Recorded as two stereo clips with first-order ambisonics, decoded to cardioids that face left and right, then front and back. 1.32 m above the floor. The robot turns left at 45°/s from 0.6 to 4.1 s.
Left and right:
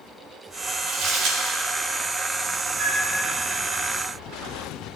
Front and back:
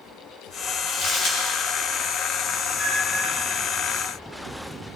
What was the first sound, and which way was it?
Crumpling, 40° right.